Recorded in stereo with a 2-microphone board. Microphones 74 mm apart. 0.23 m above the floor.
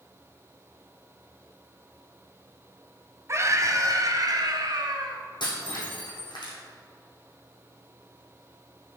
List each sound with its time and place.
3.3 s a scream: 40° right (ahead or behind), 1.3 m; by 5.2 s 65° right (ahead or behind), 2.5 m
5.4 s breaking glass: 80° left, 3.5 m